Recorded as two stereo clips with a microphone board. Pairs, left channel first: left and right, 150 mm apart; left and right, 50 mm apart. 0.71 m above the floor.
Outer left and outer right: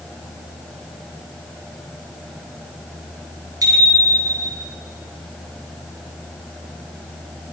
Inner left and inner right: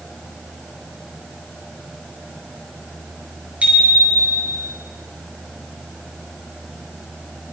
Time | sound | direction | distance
3.6 | a bicycle bell | 25° right (ahead or behind) | 8.5 m